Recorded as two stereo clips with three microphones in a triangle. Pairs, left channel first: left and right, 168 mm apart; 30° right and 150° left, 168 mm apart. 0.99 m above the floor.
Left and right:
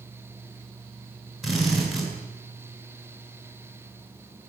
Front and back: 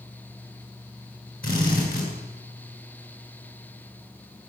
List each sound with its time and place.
1.4 s a drill: straight ahead, 10 m